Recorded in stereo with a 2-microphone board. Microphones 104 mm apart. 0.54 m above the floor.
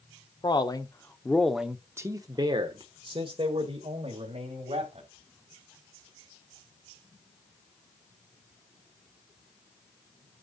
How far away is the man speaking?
About 1.1 m.